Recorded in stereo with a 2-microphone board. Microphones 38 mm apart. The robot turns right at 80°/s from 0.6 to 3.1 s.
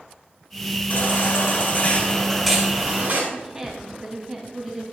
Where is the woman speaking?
15° right (ahead or behind), 2.5 m.